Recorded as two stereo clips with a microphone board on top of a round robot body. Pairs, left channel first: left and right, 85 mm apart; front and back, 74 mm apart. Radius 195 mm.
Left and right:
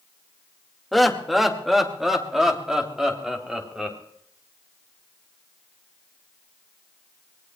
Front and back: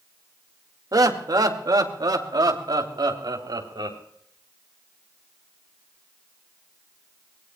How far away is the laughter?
About 2 m.